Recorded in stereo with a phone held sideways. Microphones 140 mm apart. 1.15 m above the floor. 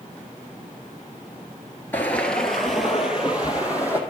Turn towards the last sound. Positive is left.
turn(degrees=-10)  # may be behind; listen again after turning